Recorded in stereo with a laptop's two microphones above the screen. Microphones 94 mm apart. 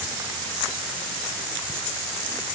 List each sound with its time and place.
Only background noise.